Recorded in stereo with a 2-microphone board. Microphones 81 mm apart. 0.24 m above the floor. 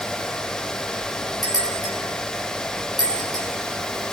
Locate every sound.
1.4 s a bell: 55° left (ahead or behind), 5.5 m